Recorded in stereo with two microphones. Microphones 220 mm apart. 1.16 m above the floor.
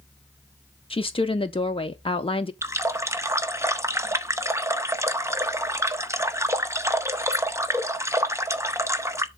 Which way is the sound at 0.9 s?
25° left (ahead or behind).